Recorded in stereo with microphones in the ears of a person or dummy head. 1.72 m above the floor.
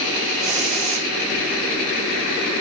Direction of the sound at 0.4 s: 40° right (ahead or behind).